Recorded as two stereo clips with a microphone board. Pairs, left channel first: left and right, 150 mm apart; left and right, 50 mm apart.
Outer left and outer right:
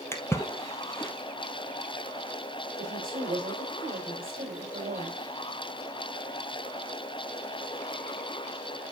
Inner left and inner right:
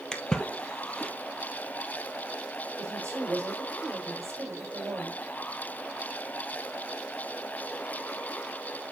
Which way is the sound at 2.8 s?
60° right (ahead or behind).